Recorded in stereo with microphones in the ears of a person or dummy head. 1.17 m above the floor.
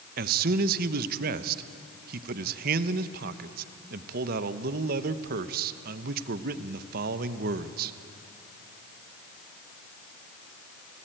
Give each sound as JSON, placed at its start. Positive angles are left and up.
{"t": 0.2, "sound": "a man speaking", "side_deg": -55, "distance_m": 1.0}